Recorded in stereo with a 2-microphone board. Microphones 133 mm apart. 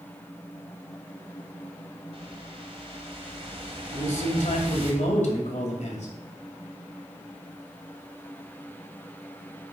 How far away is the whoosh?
About 1.7 m.